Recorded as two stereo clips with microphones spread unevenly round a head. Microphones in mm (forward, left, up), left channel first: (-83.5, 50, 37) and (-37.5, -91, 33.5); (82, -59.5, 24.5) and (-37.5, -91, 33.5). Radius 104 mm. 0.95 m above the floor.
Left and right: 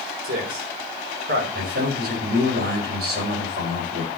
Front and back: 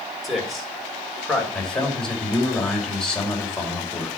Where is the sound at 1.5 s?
70° right, 4.5 m.